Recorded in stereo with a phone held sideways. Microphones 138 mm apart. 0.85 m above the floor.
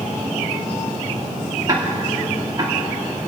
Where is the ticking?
30° right (ahead or behind), 2 m.